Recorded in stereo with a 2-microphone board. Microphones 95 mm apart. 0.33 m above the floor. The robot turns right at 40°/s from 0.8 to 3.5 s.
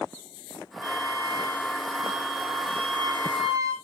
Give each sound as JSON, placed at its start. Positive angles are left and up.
{"t": 0.8, "sound": "a flute", "azimuth_deg": -145, "distance_m": 5.0}